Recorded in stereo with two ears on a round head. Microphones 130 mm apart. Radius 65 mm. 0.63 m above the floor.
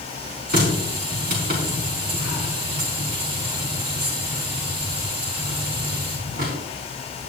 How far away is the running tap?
About 5 m.